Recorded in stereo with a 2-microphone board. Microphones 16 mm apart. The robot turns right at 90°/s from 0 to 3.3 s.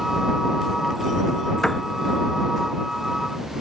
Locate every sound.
1.6 s a piano: 35° left (ahead or behind); by 1.9 s 15° left (ahead or behind)